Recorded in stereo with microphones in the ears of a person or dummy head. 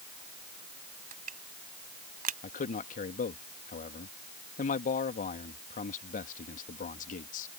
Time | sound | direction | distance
1.1 | crushing | 45° right (ahead or behind) | ?
2.4 | a man speaking | 45° left (ahead or behind) | ?